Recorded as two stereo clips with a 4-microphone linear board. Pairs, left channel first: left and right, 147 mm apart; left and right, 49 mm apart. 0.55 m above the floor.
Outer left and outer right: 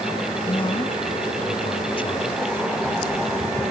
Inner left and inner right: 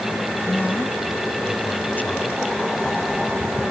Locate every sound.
0.5 s a man speaking: 35° left (ahead or behind)